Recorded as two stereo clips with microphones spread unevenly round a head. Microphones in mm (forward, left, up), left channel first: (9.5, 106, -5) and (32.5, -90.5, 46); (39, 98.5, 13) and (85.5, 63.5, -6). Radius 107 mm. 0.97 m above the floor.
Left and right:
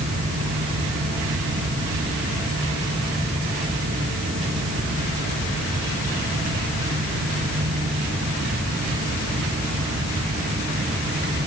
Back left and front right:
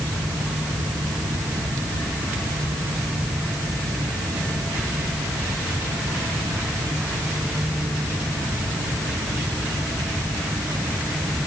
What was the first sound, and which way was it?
Only background noise.